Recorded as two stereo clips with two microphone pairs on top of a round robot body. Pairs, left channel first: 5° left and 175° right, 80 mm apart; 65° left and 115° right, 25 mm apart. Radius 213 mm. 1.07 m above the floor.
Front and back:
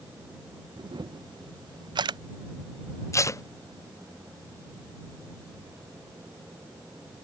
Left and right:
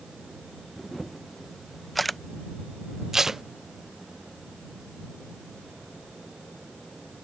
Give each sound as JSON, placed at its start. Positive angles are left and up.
{"t": 0.8, "sound": "a camera shutter", "azimuth_deg": 150}
{"t": 3.1, "sound": "tape being pulled", "azimuth_deg": -40}